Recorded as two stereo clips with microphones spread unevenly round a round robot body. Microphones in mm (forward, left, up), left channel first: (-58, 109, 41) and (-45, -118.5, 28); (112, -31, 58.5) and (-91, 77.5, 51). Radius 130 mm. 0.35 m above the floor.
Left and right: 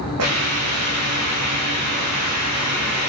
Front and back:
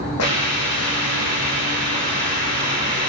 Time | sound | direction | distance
0.2 | a hiss | 55° right | 6.5 m